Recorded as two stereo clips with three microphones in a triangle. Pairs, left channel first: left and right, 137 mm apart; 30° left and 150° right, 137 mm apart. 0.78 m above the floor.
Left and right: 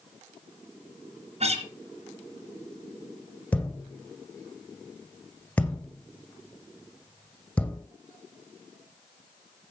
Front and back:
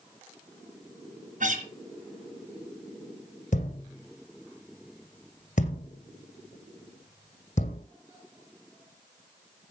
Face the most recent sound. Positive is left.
turn(degrees=10)